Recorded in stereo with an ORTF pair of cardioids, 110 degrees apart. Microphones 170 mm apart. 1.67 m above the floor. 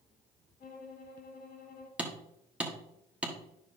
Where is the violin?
60° left, 3 m.